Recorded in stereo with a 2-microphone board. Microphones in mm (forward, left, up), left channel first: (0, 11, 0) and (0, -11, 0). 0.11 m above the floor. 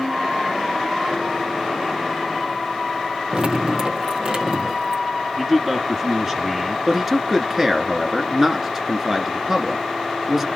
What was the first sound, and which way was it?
Dripping, 45° right (ahead or behind).